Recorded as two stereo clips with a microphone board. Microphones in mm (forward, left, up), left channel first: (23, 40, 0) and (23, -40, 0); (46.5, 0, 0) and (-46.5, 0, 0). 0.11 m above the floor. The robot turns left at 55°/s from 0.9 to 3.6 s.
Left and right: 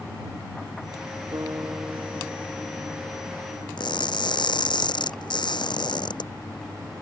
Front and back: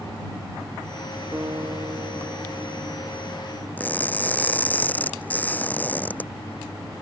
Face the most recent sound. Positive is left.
turn(degrees=75)